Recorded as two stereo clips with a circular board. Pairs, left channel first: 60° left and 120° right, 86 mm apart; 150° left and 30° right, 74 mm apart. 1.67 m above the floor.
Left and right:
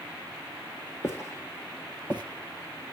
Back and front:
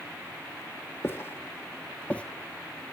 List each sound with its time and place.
1.0 s footsteps: 110° left, 2.5 m; by 2.2 s 90° left, 1.8 m